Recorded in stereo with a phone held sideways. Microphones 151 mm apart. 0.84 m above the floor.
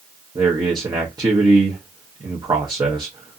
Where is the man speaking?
30° right (ahead or behind), 0.7 m.